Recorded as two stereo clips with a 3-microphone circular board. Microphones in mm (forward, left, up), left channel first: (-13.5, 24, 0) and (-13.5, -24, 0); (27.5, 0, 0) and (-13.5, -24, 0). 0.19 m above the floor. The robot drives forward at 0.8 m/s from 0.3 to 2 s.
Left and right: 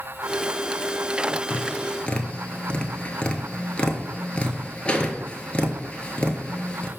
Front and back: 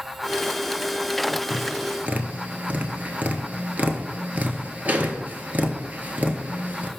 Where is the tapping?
140° left, 0.5 m; by 6.9 s 160° left, 0.9 m.